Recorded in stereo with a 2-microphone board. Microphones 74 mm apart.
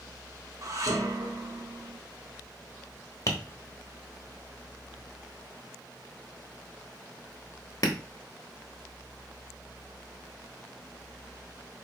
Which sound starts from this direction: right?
Dishes clattering, at 0.6 s.